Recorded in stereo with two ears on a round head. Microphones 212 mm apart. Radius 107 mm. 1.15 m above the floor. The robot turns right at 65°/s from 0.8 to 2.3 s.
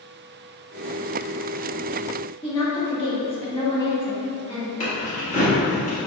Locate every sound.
2.4 s a woman speaking: 20° left (ahead or behind), 1.4 m
4.8 s keys jangling: 50° left (ahead or behind), 1.7 m